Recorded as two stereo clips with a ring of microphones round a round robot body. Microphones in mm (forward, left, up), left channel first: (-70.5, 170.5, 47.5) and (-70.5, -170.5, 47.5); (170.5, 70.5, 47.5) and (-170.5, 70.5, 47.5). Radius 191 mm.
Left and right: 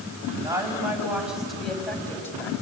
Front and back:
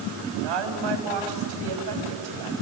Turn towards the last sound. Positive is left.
turn(degrees=170)